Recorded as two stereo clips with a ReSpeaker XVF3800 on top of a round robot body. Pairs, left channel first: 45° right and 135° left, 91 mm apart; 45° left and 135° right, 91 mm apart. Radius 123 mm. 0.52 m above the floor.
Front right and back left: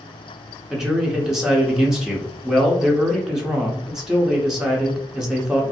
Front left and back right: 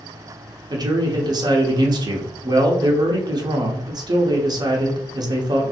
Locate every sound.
0.7 s a man speaking: 145° right, 0.8 m